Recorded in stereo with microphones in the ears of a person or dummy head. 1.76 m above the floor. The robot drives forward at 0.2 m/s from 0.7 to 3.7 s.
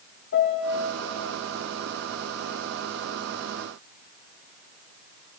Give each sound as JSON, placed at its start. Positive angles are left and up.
{"t": 0.3, "sound": "a piano", "side_deg": 60, "distance_m": 1.0}